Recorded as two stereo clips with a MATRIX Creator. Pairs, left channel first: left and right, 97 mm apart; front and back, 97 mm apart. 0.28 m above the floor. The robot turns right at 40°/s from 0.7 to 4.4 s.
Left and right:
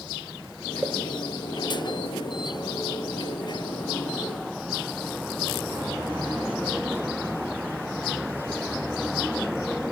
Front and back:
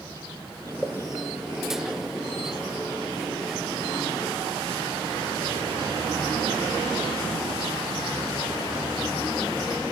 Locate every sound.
0.8 s a pop: 65° right, 0.9 m; by 0.9 s 55° right, 0.9 m